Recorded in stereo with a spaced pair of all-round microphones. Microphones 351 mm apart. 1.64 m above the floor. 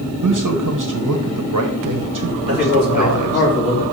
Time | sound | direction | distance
0.2 | a man speaking | 60° right (ahead or behind) | 1.0 m
2.5 | a man speaking | 25° left (ahead or behind) | 4 m